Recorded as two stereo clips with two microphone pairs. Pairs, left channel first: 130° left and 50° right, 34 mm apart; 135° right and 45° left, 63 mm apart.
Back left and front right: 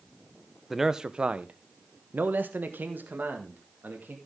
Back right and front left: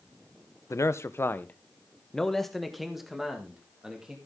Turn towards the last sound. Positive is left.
turn(degrees=-30)